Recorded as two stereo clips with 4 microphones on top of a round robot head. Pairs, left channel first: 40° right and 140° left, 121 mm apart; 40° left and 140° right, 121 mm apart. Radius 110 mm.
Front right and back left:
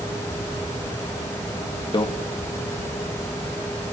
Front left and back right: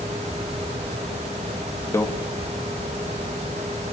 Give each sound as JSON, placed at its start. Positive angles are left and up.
{"t": 1.9, "sound": "a microwave", "azimuth_deg": -15, "distance_m": 0.9}